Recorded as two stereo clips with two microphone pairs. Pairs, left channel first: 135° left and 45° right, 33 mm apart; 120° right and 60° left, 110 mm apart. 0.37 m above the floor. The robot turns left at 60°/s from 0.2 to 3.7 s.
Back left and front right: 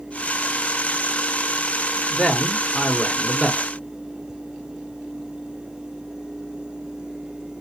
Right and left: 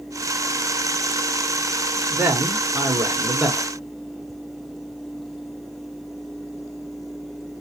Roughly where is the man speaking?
Left.